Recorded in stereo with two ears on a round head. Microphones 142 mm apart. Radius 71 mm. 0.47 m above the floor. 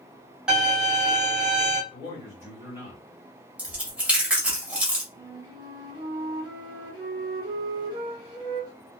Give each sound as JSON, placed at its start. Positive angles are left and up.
{"t": 0.5, "sound": "a violin", "side_deg": -5, "distance_m": 1.5}
{"t": 1.9, "sound": "a man speaking", "side_deg": -15, "distance_m": 1.7}
{"t": 3.6, "sound": "chewing", "side_deg": -10, "distance_m": 1.3}
{"t": 5.1, "sound": "a flute", "side_deg": -30, "distance_m": 1.4}